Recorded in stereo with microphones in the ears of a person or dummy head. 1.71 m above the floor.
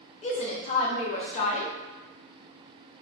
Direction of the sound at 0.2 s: 35° left (ahead or behind).